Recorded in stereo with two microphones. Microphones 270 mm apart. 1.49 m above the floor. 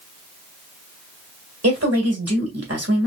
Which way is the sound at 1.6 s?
70° right (ahead or behind).